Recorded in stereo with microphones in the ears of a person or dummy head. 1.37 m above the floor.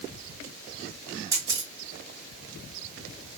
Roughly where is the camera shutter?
Centre.